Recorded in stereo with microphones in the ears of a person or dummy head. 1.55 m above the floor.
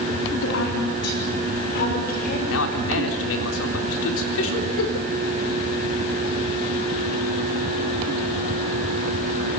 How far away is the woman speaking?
About 4 m.